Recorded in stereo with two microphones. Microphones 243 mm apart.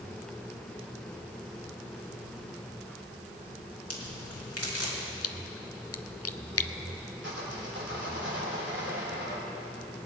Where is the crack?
75° left (ahead or behind), 2.5 m.